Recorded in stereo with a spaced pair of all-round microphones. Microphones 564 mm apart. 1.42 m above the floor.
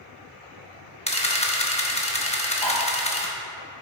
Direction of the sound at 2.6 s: 50° left (ahead or behind).